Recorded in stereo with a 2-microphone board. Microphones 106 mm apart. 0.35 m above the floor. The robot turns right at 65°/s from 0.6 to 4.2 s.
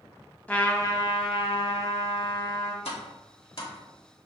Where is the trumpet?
15° left, 0.5 m; by 2.8 s 155° left, 0.5 m.